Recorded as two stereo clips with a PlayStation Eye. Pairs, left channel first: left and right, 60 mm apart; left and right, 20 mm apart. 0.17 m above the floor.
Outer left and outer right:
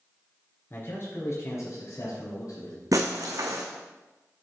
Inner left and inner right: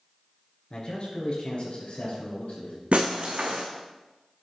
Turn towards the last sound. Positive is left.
turn(degrees=-75)  # may be behind; listen again after turning